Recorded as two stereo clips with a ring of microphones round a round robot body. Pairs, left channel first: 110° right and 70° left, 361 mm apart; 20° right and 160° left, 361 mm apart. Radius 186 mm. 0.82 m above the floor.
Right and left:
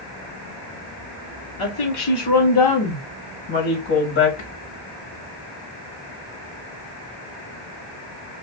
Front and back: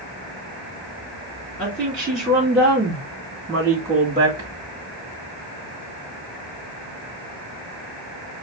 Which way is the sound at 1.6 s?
110° right.